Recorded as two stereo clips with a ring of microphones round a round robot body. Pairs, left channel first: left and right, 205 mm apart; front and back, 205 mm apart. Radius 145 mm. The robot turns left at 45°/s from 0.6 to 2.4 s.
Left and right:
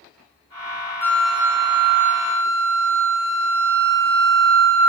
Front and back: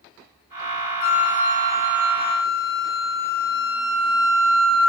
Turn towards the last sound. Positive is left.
turn(degrees=-50)